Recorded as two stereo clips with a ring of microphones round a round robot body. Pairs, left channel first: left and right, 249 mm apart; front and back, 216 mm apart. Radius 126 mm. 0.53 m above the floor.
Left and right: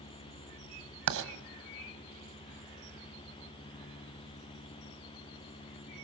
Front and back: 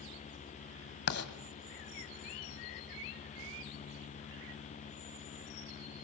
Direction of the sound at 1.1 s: 50° right.